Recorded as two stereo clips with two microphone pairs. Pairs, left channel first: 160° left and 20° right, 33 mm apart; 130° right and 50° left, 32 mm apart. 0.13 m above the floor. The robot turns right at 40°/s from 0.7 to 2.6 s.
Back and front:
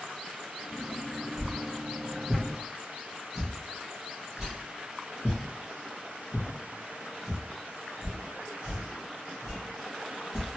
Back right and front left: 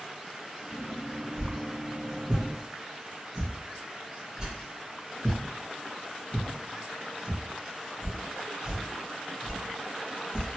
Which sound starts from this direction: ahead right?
A whoosh, at 1.4 s.